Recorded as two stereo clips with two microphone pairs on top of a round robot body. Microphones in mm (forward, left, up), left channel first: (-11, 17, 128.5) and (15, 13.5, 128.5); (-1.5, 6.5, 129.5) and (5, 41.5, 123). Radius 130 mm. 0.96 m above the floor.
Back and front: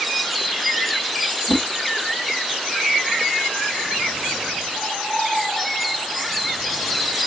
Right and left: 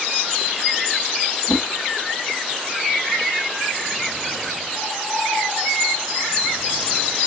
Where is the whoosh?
165° right, 1.3 m.